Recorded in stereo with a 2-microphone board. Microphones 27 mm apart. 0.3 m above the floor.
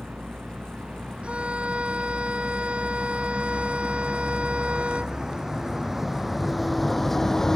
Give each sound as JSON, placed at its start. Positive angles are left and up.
{"t": 0.0, "sound": "a vehicle", "side_deg": -50}
{"t": 1.2, "sound": "a violin", "side_deg": -50}